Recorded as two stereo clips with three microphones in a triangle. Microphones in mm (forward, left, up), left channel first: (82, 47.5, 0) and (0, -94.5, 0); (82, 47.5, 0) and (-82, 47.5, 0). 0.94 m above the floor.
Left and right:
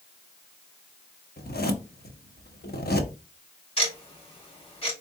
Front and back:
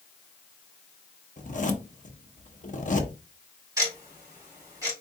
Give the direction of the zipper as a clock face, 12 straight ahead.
11 o'clock.